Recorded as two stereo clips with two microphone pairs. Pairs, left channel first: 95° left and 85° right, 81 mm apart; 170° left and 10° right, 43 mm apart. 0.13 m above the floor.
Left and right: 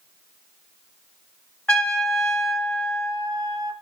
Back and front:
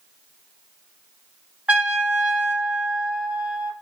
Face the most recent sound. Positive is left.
turn(degrees=30)